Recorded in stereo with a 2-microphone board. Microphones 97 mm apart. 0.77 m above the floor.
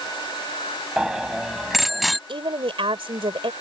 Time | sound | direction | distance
1.0 | a bicycle bell | 5° right (ahead or behind) | ?
2.3 | a woman speaking | 65° right (ahead or behind) | ?